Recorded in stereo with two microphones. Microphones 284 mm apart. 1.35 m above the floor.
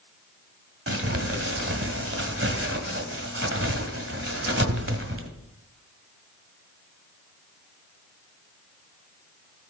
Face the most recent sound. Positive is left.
turn(degrees=-45)  # may be behind; listen again after turning